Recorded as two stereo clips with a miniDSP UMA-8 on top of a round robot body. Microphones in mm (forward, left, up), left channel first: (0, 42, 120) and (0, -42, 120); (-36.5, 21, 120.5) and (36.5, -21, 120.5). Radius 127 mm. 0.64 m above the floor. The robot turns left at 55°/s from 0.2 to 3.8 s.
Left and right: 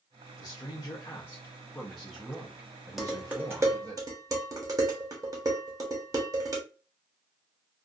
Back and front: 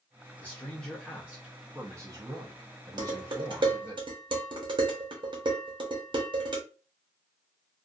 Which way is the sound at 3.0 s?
Straight ahead.